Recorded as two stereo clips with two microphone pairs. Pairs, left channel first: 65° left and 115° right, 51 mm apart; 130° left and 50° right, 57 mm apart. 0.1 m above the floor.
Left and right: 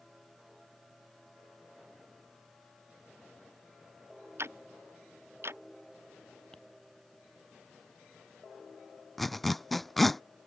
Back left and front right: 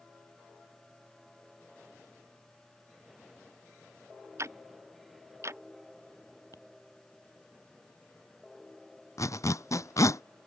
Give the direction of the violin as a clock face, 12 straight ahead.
I don't hear a violin.